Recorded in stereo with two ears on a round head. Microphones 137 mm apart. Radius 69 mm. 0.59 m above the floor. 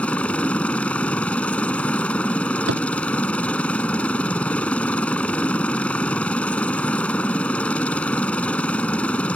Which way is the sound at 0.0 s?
5° left (ahead or behind).